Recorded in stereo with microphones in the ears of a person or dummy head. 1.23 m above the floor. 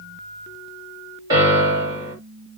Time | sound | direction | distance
1.3 | a piano | 25° right (ahead or behind) | 2 m